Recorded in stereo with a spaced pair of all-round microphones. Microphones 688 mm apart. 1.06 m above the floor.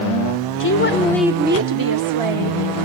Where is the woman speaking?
30° left (ahead or behind), 0.8 m; by 2.6 s 55° right (ahead or behind), 1.1 m.